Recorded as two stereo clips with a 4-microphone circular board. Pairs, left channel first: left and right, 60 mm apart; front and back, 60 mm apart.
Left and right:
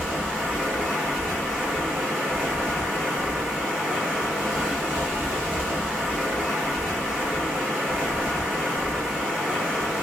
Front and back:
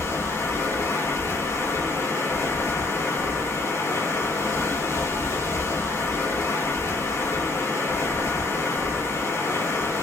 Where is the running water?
5° right, 3 m.